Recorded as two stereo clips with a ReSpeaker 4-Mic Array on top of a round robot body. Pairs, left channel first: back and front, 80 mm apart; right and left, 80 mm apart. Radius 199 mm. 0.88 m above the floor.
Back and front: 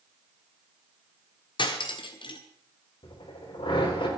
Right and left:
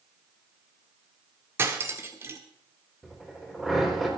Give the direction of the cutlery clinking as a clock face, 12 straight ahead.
7 o'clock.